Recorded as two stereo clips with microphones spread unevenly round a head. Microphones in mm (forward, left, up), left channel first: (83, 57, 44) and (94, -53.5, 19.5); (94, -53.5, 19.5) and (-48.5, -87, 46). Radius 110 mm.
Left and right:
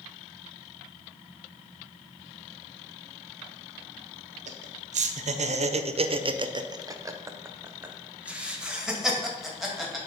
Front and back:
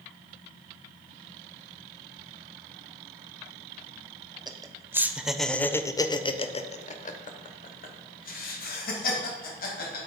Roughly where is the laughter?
Right.